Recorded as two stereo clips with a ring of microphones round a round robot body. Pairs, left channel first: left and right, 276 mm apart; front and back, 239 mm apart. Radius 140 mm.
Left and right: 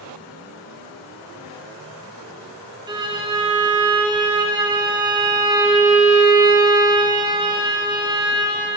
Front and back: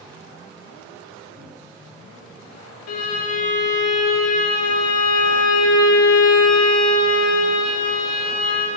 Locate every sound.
2.9 s a violin: 15° right, 1.0 m